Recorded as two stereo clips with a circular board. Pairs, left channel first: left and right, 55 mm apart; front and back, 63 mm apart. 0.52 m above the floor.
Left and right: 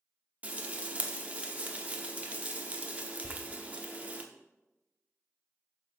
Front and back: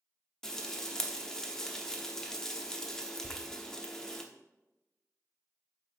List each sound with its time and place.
0.4 s frying: 75° right, 0.8 m
3.2 s a door slam: 105° right, 0.9 m